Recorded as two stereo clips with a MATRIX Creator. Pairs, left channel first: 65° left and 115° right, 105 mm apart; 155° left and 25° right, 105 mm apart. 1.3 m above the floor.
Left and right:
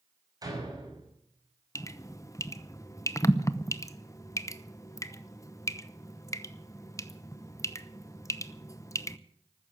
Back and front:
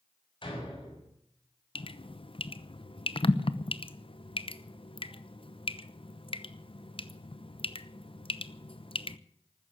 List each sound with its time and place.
0.4 s a door slam: 165° right, 6 m
1.8 s dripping: 125° left, 0.8 m